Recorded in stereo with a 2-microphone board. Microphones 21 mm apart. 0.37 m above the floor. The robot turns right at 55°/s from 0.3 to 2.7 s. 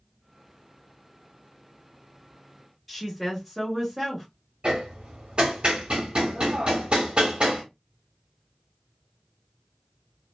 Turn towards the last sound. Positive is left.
turn(degrees=-55)  # may be behind; listen again after turning